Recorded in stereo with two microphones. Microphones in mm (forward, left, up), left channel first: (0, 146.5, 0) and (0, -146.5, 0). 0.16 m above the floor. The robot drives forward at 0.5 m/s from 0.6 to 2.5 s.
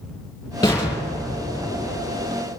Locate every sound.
0.6 s an explosion: 10° left (ahead or behind), 3.5 m; by 2.4 s 15° left (ahead or behind), 2.5 m